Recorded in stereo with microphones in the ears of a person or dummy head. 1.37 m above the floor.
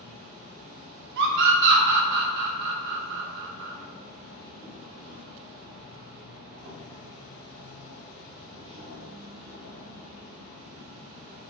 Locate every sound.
0.0 s an insect: 75° right (ahead or behind), 0.9 m
1.2 s a scream: 60° right (ahead or behind), 0.5 m